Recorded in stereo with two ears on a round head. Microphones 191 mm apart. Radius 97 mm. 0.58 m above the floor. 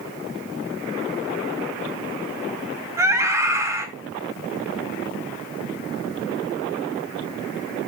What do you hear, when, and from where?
3.0 s a scream: 15° right (ahead or behind), 4 m